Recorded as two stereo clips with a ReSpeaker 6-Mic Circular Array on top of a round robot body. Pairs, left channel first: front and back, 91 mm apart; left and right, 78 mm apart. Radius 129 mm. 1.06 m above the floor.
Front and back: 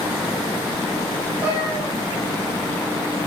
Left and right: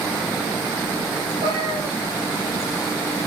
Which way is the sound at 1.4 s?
105° right.